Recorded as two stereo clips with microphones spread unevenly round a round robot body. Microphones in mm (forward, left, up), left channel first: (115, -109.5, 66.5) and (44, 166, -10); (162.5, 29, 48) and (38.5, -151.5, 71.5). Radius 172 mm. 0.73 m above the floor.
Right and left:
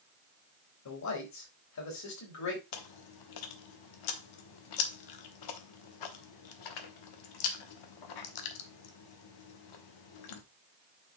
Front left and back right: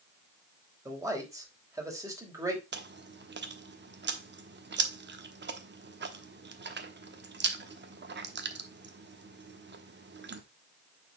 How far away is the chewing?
About 1.3 m.